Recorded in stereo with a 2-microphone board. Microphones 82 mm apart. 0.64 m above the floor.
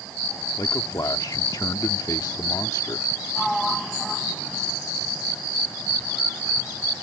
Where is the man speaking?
55° left (ahead or behind).